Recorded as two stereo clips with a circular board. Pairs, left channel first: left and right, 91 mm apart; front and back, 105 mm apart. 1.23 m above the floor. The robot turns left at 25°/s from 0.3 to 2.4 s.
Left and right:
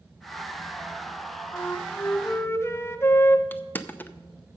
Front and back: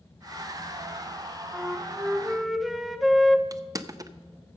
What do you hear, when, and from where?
1.5 s a flute: 115° left, 0.6 m; by 3.4 s 95° left, 0.6 m
3.5 s crushing: 145° left, 0.5 m